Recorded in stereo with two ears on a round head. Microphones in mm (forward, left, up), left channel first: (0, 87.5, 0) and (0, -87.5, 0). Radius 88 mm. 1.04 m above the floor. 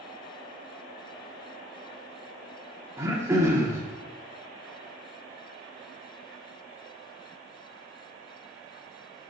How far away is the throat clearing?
About 0.9 m.